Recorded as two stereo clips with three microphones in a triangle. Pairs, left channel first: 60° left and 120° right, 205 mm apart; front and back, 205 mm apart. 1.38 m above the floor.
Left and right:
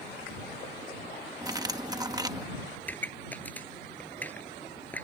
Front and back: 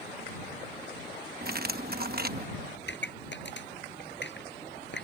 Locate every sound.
1.4 s cutlery clinking: 175° left
2.8 s a pop: 20° right